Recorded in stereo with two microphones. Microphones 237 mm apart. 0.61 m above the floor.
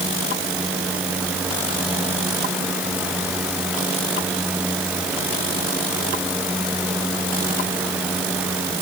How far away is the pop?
No pop in this recording.